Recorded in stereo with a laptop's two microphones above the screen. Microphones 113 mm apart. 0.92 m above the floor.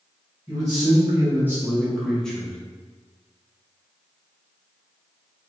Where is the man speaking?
30° right (ahead or behind), 1.1 m; by 2.6 s 10° left (ahead or behind), 1.0 m.